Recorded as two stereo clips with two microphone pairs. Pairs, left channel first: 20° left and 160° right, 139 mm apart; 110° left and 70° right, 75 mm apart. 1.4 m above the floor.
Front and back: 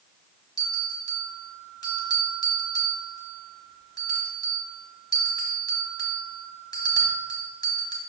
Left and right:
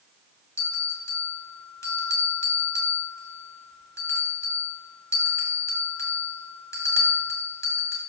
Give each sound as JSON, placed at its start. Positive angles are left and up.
{"t": 0.6, "sound": "a bell", "azimuth_deg": 75, "distance_m": 1.8}